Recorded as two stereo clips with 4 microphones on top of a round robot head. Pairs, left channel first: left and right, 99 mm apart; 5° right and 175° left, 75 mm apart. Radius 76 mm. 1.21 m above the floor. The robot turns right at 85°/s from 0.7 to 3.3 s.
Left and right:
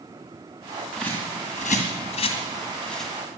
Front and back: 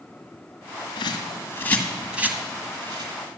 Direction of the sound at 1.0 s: Straight ahead.